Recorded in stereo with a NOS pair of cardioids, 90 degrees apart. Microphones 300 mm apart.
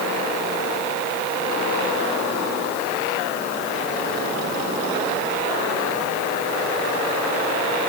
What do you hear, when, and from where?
Only background noise.